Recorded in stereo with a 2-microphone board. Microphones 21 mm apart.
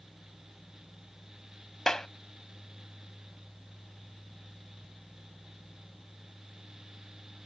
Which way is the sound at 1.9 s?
30° left (ahead or behind).